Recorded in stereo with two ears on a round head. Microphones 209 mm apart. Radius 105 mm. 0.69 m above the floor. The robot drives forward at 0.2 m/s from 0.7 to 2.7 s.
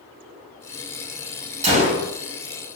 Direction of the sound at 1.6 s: 30° right (ahead or behind).